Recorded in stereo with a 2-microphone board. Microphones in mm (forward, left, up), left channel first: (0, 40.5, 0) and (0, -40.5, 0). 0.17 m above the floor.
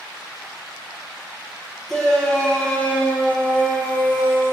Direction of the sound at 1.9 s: 5° left (ahead or behind).